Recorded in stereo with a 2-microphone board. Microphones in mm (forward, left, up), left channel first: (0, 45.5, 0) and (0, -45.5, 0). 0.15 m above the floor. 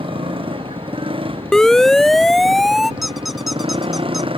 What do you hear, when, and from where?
0.0 s a motorcycle: 75° right (ahead or behind); by 4.4 s 80° right
1.5 s a siren: 5° left (ahead or behind); by 2.9 s centre (ahead or behind)
3.0 s a squeak: centre (ahead or behind)